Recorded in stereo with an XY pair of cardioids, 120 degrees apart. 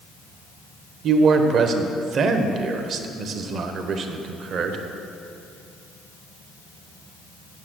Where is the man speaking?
55° right, 1.0 m.